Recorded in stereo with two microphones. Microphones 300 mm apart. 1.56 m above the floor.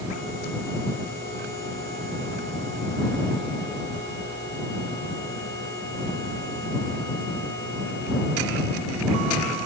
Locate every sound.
Only background noise.